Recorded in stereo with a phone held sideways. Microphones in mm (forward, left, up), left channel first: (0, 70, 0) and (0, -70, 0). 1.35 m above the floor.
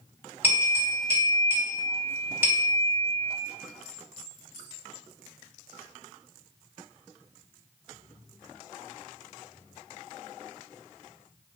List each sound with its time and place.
0.4 s a bell: 15° right (ahead or behind), 1.8 m